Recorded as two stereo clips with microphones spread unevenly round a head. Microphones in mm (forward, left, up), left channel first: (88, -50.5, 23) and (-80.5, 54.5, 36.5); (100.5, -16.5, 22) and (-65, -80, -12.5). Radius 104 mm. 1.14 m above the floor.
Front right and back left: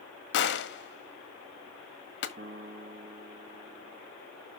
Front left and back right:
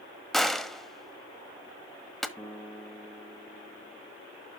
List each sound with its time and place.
0.3 s a gunshot: 70° right, 1.4 m
2.4 s a piano: 95° left, 2.5 m